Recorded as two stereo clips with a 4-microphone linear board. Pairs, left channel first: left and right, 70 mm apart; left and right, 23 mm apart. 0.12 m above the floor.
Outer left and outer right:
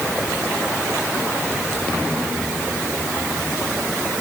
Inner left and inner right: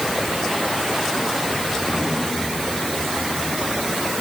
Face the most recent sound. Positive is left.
No sound to turn to.